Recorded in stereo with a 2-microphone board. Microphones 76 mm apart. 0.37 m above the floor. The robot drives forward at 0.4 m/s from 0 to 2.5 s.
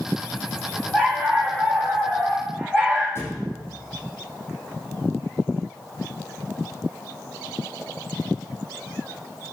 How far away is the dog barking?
About 6 m.